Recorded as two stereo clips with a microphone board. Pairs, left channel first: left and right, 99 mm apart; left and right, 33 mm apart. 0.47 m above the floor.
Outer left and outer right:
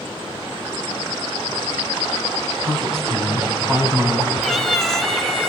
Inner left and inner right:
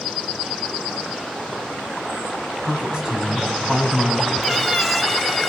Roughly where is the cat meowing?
Centre.